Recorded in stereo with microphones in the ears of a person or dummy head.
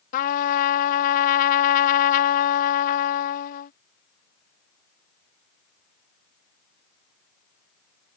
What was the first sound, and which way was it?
A trumpet, 50° left (ahead or behind).